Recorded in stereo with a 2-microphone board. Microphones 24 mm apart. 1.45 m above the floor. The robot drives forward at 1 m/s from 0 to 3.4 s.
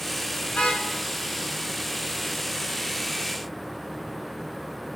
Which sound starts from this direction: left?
A car horn, at 0.5 s.